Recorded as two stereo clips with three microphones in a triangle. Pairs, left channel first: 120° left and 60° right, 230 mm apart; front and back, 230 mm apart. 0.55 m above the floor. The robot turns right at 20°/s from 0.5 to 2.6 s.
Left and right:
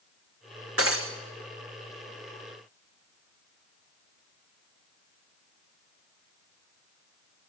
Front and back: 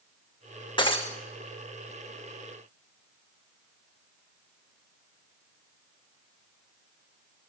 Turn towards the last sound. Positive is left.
turn(degrees=-35)